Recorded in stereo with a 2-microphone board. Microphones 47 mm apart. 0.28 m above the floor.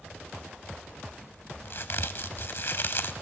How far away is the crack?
About 0.6 m.